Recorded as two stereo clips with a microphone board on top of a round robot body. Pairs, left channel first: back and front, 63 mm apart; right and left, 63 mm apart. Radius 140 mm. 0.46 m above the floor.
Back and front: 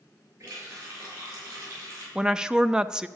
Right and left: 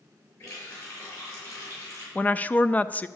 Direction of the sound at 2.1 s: 65° right.